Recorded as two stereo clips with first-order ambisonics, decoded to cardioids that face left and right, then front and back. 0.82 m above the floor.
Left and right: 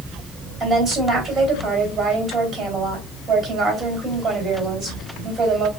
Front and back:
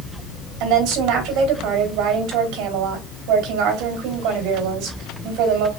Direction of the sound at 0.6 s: 160° right.